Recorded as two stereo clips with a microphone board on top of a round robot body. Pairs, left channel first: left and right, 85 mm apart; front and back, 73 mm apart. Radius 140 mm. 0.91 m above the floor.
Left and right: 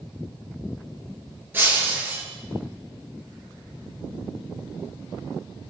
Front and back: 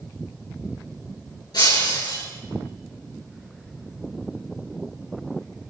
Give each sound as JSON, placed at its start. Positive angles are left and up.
{"t": 1.5, "sound": "breaking glass", "azimuth_deg": -20, "distance_m": 9.0}